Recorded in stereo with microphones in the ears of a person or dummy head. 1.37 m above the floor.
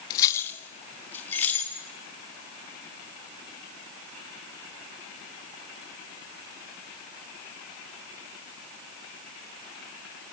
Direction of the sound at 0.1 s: 20° left (ahead or behind).